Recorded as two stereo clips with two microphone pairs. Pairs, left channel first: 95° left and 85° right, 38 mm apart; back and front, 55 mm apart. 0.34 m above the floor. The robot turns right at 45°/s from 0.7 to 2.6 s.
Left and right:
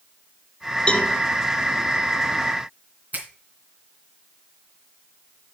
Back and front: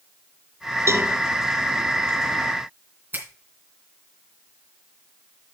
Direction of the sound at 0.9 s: 30° left.